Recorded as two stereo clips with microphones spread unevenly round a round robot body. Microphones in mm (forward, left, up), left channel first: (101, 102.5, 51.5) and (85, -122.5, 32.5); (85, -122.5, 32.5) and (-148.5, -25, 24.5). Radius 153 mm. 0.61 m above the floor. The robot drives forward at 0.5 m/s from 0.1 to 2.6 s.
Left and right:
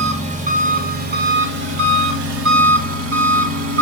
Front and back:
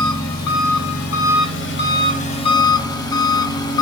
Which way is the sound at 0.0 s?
35° right.